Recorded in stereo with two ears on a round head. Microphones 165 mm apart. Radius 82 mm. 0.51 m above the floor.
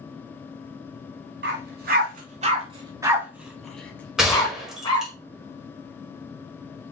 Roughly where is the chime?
No chime in this recording.